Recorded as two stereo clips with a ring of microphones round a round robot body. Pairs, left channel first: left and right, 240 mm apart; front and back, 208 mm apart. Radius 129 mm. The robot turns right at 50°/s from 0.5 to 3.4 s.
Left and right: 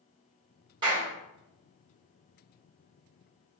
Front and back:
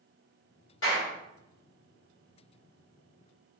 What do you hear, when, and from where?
0.8 s a clap: 20° right, 1.9 m; by 1.1 s 5° right, 1.9 m